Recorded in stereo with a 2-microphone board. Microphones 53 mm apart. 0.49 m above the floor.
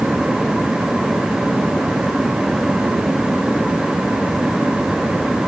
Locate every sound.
Only background noise.